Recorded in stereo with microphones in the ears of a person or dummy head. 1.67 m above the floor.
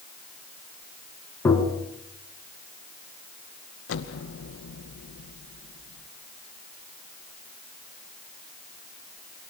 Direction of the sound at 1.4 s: 20° left (ahead or behind).